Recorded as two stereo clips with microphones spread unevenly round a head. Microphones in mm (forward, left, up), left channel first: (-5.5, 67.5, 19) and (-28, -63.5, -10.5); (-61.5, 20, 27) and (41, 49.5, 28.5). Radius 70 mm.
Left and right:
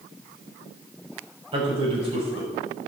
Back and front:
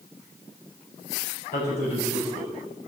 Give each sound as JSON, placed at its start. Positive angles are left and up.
{"t": 1.5, "sound": "a man speaking", "azimuth_deg": -150, "distance_m": 5.5}